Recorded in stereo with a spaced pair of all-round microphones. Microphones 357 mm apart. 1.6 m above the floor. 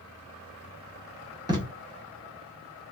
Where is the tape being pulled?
10° right (ahead or behind), 1.0 m.